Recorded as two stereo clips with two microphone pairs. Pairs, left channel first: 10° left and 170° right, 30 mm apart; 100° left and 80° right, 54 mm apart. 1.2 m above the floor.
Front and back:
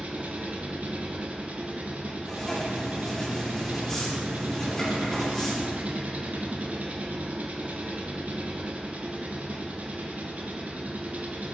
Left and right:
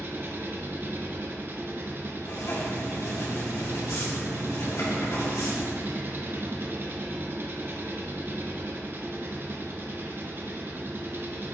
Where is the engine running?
130° right, 0.8 m.